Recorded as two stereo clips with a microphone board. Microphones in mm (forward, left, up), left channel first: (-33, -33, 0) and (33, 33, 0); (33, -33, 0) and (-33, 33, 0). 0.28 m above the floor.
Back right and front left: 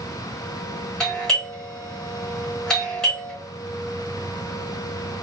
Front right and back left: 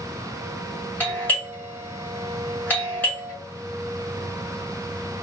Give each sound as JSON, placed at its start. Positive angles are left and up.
{"t": 1.0, "sound": "a doorbell", "azimuth_deg": -65, "distance_m": 1.9}